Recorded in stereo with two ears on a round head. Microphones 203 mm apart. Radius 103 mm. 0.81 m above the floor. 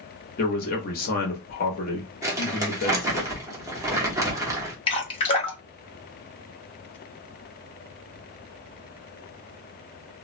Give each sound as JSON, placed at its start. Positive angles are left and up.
{"t": 0.4, "sound": "a man speaking", "side_deg": 40, "distance_m": 1.0}
{"t": 2.2, "sound": "crumpling", "side_deg": -15, "distance_m": 1.0}
{"t": 4.9, "sound": "dripping", "side_deg": 25, "distance_m": 0.7}